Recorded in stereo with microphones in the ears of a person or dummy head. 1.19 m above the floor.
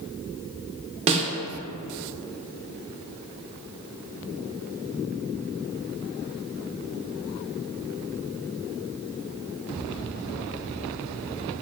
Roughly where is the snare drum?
Right.